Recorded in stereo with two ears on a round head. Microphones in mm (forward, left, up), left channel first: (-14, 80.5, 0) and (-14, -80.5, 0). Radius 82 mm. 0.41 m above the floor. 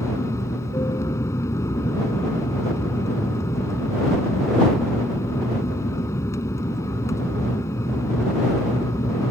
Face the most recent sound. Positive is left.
turn(degrees=20)  # may be behind; listen again after turning